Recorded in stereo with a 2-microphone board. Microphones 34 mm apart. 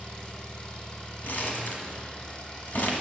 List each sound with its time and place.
0.0 s an engine running: 35° left (ahead or behind), 2.5 m
1.2 s crumpling: 60° left (ahead or behind), 1.4 m